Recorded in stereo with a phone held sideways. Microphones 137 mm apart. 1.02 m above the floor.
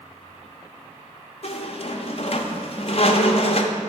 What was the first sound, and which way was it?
A squeak, 50° left (ahead or behind).